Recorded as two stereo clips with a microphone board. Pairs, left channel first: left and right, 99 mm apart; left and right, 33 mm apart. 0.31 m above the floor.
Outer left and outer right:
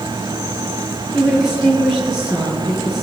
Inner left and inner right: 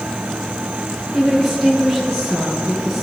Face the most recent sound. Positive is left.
turn(degrees=-5)  # may be behind; listen again after turning